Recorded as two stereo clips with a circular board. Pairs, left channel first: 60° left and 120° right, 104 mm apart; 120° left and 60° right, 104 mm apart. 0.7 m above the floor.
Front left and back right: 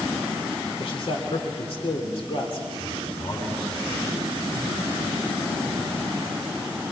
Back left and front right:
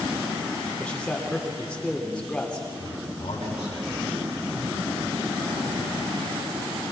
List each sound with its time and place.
0.8 s a man speaking: 40° left, 2.5 m
2.8 s a man speaking: 100° left, 6.5 m